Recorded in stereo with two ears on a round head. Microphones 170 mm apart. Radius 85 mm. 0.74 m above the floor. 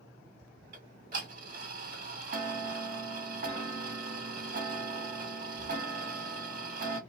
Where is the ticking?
45° right (ahead or behind), 1.3 m.